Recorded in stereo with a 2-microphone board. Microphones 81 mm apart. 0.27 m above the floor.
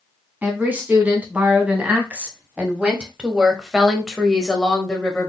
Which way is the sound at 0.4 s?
20° right (ahead or behind).